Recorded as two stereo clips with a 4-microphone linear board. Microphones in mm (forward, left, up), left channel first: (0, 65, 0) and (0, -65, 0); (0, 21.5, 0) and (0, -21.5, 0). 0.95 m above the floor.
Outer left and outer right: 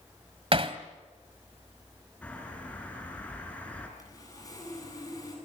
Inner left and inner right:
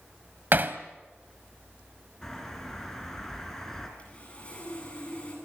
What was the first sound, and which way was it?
Hammering, 45° right (ahead or behind).